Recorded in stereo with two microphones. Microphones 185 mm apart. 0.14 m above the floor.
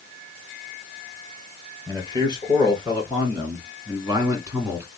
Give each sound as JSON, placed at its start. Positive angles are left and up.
{"t": 1.9, "sound": "a man speaking", "side_deg": -25, "distance_m": 2.5}